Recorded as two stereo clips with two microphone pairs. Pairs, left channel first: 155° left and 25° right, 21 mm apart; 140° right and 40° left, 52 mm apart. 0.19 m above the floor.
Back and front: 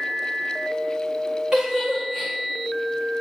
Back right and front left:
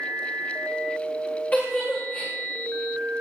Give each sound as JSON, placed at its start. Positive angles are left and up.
{"t": 1.5, "sound": "a giggle", "azimuth_deg": -80, "distance_m": 7.0}